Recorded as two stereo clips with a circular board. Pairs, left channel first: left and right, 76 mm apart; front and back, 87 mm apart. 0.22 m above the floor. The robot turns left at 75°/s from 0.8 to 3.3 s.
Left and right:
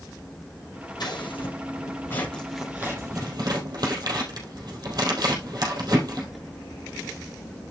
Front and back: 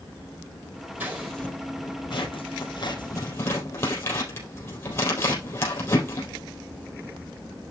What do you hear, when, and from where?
1.0 s scissors: 110° left, 4 m; by 6.3 s 60° right, 4 m